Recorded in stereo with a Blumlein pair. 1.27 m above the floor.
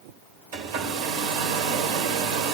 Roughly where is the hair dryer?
Ahead right.